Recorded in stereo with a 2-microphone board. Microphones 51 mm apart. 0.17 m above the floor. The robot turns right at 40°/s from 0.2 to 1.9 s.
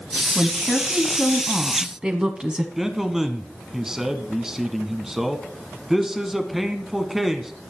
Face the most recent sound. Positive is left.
turn(degrees=-10)  # may be behind; listen again after turning